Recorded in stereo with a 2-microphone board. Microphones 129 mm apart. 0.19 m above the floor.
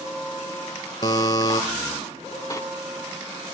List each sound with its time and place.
1.0 s a buzzer: 30° left (ahead or behind), 1.0 m
2.5 s a sliding door: 25° left (ahead or behind), 0.5 m